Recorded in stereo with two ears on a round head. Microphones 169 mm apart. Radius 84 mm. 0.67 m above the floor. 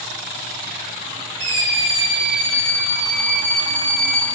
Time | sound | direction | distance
1.4 | a scream | 75° right (ahead or behind) | 5 m